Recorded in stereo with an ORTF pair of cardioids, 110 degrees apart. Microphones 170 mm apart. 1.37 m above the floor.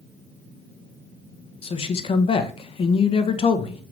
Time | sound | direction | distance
1.6 | a man speaking | 35° left | 1.3 m